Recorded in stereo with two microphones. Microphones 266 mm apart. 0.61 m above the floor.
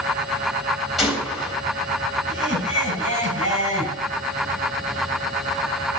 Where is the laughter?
60° right (ahead or behind), 6.5 m.